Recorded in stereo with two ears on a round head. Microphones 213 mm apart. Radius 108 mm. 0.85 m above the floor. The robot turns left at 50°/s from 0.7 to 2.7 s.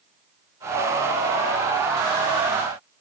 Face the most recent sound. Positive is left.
No sound to turn to.